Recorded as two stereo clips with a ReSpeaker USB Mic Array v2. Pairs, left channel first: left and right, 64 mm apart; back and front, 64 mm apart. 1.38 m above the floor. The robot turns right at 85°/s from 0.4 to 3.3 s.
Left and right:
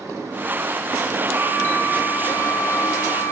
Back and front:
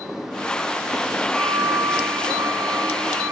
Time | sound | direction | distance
1.3 | a flute | 115° right | 9 m